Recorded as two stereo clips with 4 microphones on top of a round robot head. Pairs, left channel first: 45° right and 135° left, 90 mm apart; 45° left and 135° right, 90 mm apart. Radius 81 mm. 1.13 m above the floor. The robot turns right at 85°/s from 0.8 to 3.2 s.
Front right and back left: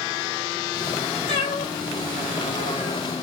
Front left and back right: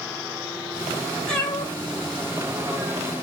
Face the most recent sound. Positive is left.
turn(degrees=125)